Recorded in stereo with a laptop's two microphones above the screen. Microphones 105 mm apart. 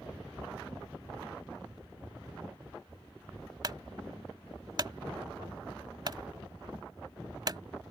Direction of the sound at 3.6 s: 45° right (ahead or behind).